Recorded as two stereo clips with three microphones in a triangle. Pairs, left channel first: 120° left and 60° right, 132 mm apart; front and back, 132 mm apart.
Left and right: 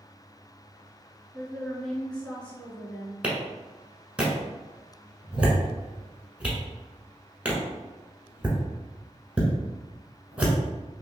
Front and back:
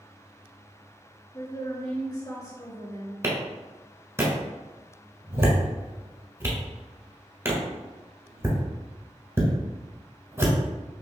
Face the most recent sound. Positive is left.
turn(degrees=-135)